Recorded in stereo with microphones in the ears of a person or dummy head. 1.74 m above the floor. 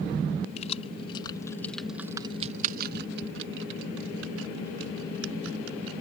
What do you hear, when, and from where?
0.6 s keys jangling: 40° left (ahead or behind); by 6.0 s 80° right